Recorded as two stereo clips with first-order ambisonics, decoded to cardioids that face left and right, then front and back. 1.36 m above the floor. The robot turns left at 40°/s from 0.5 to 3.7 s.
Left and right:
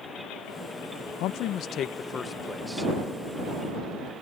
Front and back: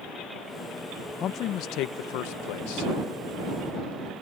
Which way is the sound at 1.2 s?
55° left.